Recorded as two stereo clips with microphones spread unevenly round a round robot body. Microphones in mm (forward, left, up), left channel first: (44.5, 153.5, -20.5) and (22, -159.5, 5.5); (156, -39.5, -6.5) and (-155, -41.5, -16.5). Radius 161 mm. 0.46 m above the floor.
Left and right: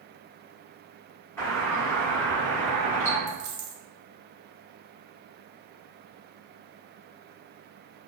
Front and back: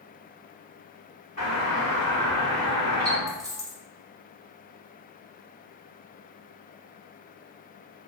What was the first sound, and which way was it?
A doorbell, 30° left.